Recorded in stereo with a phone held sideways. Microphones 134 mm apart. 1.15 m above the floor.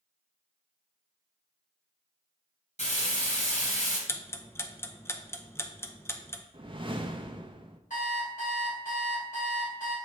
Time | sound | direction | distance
2.8 | frying | 60° left (ahead or behind) | 2.5 m
4.1 | ticking | 20° left (ahead or behind) | 0.6 m
6.5 | a whoosh | 40° right (ahead or behind) | 0.7 m
7.9 | an alarm clock | 80° left | 3 m